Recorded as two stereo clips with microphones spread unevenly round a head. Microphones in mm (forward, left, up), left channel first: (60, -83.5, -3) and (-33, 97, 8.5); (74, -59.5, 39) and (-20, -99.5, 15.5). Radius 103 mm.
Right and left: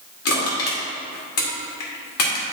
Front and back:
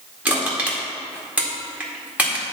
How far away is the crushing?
About 2 m.